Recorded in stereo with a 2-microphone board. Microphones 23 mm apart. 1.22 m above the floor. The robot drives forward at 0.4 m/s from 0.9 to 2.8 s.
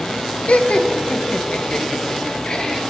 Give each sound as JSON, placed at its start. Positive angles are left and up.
{"t": 0.5, "sound": "laughter", "side_deg": 85, "distance_m": 0.8}